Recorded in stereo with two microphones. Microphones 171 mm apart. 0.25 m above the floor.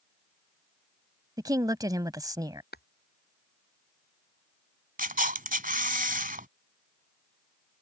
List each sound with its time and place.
1.4 s a woman speaking: 20° right (ahead or behind)
2.7 s tapping: 70° left (ahead or behind)
5.0 s a camera shutter: 55° right (ahead or behind)